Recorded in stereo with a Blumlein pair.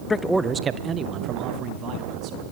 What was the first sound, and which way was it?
A man speaking, 15° left.